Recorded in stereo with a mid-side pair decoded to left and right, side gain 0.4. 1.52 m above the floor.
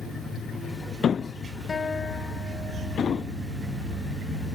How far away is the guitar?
About 1.2 m.